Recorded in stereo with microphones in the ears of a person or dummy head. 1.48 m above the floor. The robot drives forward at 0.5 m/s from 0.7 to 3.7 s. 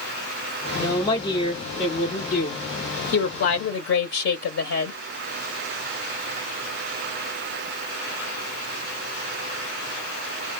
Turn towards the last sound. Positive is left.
turn(degrees=65)  # may be behind; listen again after turning